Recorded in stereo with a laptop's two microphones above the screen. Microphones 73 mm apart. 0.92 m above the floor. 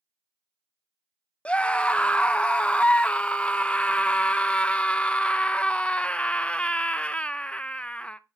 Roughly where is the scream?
Centre.